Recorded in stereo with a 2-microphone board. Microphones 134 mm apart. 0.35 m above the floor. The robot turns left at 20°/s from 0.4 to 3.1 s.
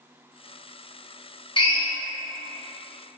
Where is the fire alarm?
I don't hear a fire alarm.